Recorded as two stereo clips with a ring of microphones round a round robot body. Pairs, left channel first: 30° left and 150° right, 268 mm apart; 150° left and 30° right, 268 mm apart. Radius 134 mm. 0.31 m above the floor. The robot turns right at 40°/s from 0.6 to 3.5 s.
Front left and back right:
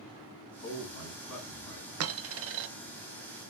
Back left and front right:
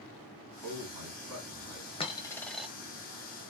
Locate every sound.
0.6 s a man speaking: 15° right, 3.5 m; by 1.9 s 35° left, 3.5 m
2.0 s a dropped coin: 145° right, 0.7 m; by 2.7 s 115° right, 0.7 m